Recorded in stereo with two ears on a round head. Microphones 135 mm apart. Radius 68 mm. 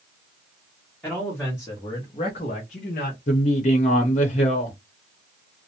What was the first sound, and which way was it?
A man speaking, 5° left (ahead or behind).